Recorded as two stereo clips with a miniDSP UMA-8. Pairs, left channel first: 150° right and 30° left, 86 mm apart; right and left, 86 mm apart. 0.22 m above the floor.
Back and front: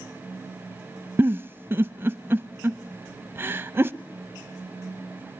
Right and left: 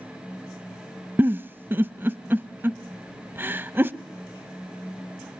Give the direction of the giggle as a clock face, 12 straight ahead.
10 o'clock.